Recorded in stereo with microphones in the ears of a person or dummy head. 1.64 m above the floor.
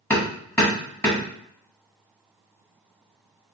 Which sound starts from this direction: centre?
Hammering, at 0.1 s.